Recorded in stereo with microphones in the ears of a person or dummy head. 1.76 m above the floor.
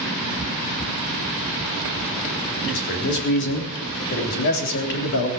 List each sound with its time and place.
2.6 s a man speaking: 55° left (ahead or behind), 3.5 m